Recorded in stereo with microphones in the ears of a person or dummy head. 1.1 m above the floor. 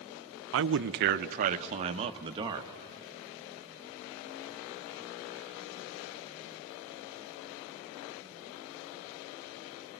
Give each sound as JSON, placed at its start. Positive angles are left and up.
{"t": 0.5, "sound": "a man speaking", "side_deg": -70, "distance_m": 0.7}